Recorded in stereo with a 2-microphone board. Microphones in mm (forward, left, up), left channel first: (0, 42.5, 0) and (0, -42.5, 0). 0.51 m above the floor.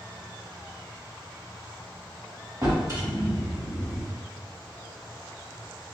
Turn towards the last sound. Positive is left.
turn(degrees=-40)  # may be behind; listen again after turning